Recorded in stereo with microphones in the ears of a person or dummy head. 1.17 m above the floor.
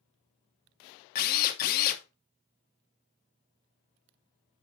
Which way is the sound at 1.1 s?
50° left (ahead or behind).